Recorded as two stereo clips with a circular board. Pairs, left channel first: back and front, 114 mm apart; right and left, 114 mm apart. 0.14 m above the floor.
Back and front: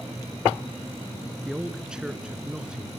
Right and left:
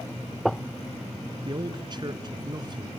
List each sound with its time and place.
1.4 s a man speaking: 80° left, 1.5 m